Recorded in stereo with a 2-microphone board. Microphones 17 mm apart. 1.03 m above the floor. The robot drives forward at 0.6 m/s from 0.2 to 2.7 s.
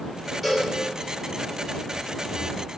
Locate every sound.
0.4 s a cowbell: 10° right (ahead or behind), 3.5 m